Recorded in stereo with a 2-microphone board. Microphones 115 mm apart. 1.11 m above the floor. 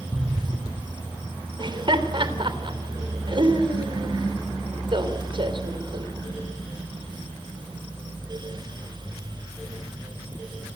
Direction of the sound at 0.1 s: 20° right (ahead or behind).